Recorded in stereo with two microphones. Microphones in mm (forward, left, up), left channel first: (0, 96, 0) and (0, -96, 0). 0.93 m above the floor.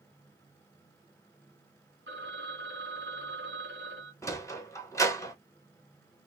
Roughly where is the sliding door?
Centre.